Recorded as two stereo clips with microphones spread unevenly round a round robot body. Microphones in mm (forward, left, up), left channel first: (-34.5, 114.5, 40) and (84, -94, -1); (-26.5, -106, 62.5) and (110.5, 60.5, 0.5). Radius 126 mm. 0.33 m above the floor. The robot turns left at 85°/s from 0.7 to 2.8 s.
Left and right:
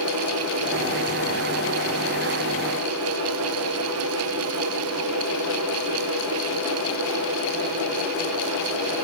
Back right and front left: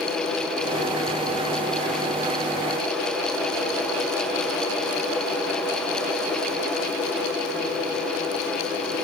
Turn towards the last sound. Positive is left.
No sound to turn to.